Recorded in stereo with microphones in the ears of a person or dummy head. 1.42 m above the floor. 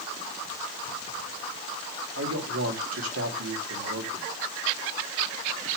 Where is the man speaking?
85° right, 2.5 m.